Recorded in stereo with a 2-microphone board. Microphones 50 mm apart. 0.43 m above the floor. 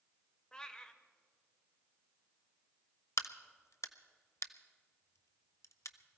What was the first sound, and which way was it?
A cat meowing, 15° left (ahead or behind).